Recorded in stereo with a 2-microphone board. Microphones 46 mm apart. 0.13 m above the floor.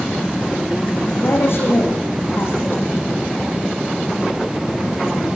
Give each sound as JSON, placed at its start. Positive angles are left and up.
{"t": 1.2, "sound": "a woman speaking", "side_deg": 60, "distance_m": 9.5}